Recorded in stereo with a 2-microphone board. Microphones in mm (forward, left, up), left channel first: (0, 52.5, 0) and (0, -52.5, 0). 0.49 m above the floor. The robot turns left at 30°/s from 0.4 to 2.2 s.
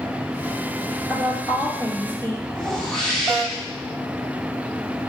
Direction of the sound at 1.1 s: 30° right.